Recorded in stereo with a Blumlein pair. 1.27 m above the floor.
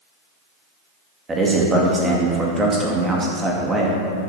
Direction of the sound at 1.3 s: 15° right.